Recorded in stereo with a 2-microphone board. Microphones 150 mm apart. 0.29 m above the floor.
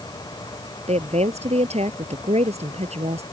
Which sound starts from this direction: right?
A woman speaking, at 0.9 s.